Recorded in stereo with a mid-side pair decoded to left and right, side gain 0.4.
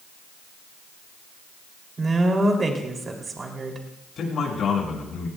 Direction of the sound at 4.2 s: 65° left.